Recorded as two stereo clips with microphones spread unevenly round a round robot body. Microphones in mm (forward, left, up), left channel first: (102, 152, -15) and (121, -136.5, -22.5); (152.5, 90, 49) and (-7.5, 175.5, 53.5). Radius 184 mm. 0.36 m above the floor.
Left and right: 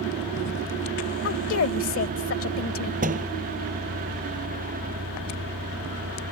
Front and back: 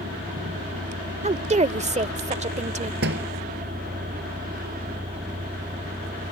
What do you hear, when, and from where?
0.0 s a vehicle: 145° right
1.2 s a woman speaking: 115° left
3.0 s a door slam: 155° right